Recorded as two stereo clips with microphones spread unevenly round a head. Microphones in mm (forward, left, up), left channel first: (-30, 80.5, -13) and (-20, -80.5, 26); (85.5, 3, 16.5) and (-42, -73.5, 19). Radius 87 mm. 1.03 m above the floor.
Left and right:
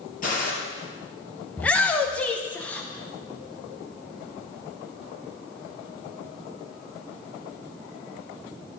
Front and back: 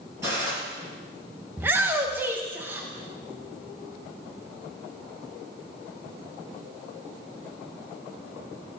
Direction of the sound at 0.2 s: 135° left.